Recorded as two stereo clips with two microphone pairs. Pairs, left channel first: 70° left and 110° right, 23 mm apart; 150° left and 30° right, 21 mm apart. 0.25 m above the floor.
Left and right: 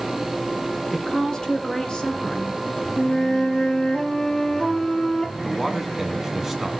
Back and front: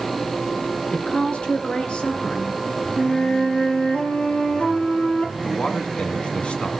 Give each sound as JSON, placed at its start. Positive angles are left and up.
{"t": 0.9, "sound": "a woman speaking", "azimuth_deg": 130, "distance_m": 3.0}
{"t": 3.0, "sound": "a flute", "azimuth_deg": 130, "distance_m": 2.5}
{"t": 5.4, "sound": "a man speaking", "azimuth_deg": 165, "distance_m": 2.5}